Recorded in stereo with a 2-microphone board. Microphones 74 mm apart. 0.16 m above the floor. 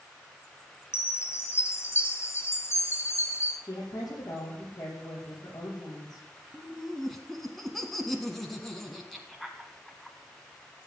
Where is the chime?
35° left (ahead or behind), 2 m.